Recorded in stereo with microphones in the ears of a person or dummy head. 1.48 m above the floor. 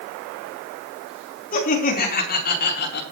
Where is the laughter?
40° left (ahead or behind), 4 m; by 3.0 s 55° left (ahead or behind), 3.5 m.